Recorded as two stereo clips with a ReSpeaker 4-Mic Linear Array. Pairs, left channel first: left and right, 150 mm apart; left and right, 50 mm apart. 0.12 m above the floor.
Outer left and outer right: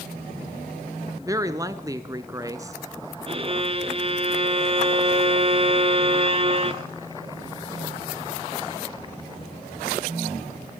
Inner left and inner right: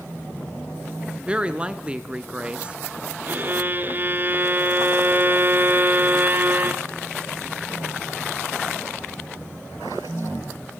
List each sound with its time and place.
1.2 s a woman speaking: 20° right (ahead or behind), 1.2 m
3.3 s a violin: 35° right (ahead or behind), 0.9 m